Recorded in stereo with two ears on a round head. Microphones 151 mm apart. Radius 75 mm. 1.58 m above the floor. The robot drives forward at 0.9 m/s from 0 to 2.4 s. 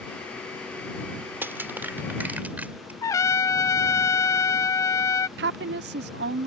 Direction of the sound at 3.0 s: 20° left (ahead or behind).